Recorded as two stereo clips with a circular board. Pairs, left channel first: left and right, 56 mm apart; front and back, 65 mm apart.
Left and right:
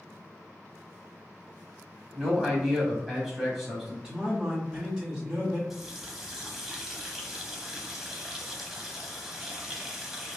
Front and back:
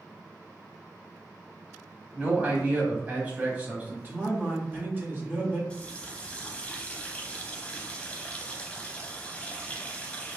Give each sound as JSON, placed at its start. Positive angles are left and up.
{"t": 2.1, "sound": "a man speaking", "azimuth_deg": -170, "distance_m": 1.0}
{"t": 4.0, "sound": "a man speaking", "azimuth_deg": -155, "distance_m": 1.3}
{"t": 5.7, "sound": "a running tap", "azimuth_deg": -20, "distance_m": 0.7}